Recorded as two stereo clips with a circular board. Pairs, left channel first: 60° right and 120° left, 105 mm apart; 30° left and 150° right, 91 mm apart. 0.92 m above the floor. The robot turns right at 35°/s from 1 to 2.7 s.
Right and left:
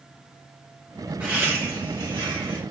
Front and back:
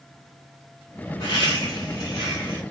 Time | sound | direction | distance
1.2 | laughter | 45° left | 2.0 m